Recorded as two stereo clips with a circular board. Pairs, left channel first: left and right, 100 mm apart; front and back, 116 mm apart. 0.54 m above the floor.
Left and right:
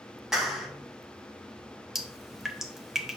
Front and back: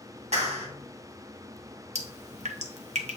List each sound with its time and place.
0.3 s a clap: 175° right, 2.5 m
1.9 s dripping: 175° right, 1.0 m